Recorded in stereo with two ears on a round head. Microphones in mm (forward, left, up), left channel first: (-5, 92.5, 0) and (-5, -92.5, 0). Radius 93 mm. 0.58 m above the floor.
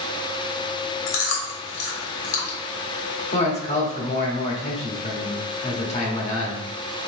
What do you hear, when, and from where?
1.1 s chewing: 65° left (ahead or behind), 1.2 m
3.3 s a man speaking: 35° left (ahead or behind), 1.1 m